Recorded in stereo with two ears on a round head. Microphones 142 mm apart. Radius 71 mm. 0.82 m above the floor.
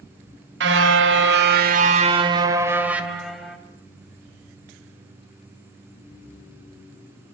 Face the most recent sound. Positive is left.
turn(degrees=5)  # may be behind; listen again after turning